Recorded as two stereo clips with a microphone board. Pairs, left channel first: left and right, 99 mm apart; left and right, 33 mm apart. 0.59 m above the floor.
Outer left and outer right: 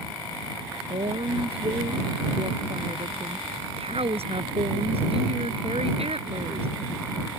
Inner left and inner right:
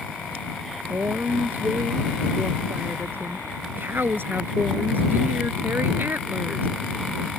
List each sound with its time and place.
0.9 s a woman speaking: 85° right